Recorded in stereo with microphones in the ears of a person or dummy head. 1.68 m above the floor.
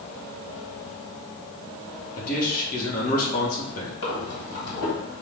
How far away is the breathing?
About 1.6 m.